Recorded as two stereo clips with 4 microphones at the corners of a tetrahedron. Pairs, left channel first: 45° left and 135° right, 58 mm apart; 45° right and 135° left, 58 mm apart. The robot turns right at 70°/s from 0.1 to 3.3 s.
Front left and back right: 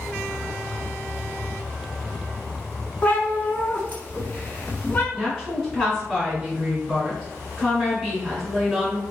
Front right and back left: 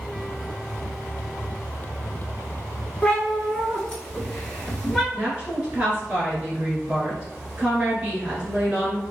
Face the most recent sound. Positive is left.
turn(degrees=145)